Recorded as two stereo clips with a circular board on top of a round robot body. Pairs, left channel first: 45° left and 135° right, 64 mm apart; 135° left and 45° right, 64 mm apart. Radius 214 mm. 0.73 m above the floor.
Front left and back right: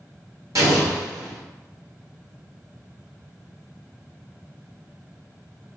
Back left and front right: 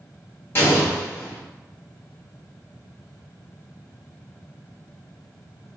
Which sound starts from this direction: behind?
An explosion, at 0.6 s.